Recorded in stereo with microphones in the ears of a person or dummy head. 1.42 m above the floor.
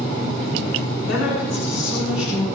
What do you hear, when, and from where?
1.1 s a woman speaking: 85° left, 9 m; by 2.5 s 75° left (ahead or behind), 9 m